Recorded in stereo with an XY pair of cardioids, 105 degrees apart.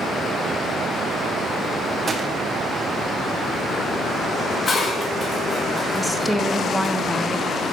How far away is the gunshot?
About 1.2 m.